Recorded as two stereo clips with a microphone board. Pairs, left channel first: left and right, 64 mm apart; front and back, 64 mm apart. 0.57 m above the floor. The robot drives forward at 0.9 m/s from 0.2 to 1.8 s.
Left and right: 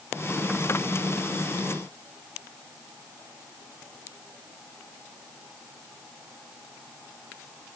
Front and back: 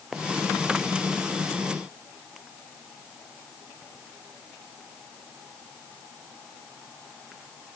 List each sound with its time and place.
Only background noise.